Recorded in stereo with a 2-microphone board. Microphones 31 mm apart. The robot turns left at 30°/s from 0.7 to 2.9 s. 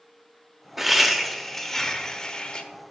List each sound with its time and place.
0.8 s laughter: 170° right, 0.9 m; by 2.6 s 130° left, 0.9 m